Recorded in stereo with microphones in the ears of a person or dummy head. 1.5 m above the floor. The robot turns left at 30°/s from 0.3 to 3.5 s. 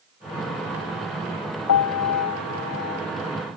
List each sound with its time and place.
1.7 s a piano: 90° left; by 3.0 s 55° left